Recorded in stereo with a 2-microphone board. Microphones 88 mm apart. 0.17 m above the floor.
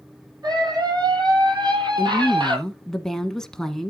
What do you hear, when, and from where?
0.4 s a scream: 50° right (ahead or behind), 6 m; by 2.6 s 60° right (ahead or behind), 5.5 m
2.0 s a woman speaking: 5° left (ahead or behind), 1.4 m